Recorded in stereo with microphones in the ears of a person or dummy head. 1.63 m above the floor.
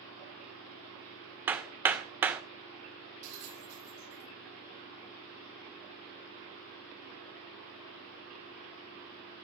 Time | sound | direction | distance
1.5 | hammering | 20° right (ahead or behind) | 1.6 m
3.2 | a bell | 70° right (ahead or behind) | 7.5 m